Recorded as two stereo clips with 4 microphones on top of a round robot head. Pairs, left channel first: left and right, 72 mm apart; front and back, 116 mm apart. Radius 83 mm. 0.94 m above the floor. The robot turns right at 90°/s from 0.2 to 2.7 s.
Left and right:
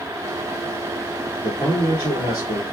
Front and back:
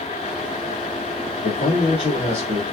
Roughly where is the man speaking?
Ahead.